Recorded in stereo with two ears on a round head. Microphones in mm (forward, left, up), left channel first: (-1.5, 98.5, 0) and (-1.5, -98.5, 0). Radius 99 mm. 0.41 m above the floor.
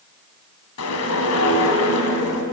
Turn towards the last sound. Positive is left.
turn(degrees=75)  # may be behind; listen again after turning